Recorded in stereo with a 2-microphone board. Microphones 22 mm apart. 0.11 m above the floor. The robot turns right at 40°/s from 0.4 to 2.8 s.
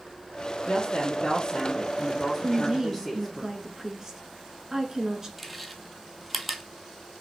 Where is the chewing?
Centre (ahead or behind), 0.8 m.